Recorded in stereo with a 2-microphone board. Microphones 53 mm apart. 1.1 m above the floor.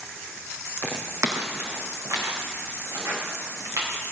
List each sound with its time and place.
0.8 s footsteps: 55° right (ahead or behind), 1.8 m; by 3.9 s 65° right (ahead or behind), 5.5 m